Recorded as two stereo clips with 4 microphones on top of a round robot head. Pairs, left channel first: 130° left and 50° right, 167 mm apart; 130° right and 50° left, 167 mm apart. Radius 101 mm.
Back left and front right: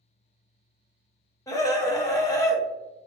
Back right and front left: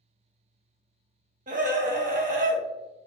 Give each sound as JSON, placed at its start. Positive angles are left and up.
{"t": 1.5, "sound": "a scream", "azimuth_deg": 65, "distance_m": 0.9}